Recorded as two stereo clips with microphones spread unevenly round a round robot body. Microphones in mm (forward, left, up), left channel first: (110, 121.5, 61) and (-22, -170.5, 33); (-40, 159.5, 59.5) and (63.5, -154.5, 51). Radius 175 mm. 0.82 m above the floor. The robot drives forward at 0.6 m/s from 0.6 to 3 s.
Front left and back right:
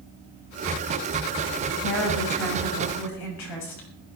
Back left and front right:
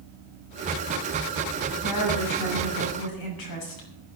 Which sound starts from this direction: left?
A woman speaking, at 1.8 s.